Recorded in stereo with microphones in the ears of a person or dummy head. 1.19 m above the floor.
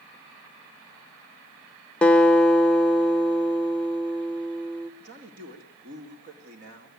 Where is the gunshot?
No gunshot in this recording.